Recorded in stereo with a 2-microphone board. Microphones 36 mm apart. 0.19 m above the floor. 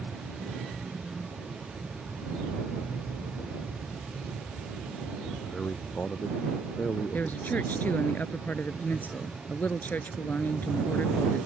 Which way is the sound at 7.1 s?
60° left (ahead or behind).